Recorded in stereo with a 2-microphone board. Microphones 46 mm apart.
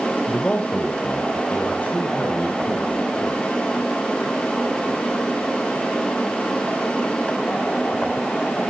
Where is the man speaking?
15° left (ahead or behind), 0.9 m; by 3.4 s 40° left (ahead or behind), 4.5 m.